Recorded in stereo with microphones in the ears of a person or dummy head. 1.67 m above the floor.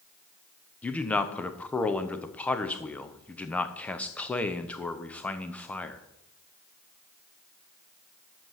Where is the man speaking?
10° left (ahead or behind), 0.7 m.